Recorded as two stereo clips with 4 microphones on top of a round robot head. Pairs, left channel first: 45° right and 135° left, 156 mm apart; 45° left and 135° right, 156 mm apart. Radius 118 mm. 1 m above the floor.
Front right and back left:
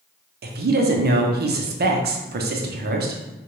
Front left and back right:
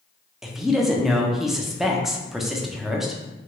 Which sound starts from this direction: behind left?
A woman speaking, at 0.4 s.